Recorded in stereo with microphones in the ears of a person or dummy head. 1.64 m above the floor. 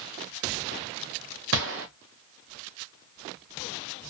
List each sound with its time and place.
1.5 s a gunshot: 55° right (ahead or behind), 0.8 m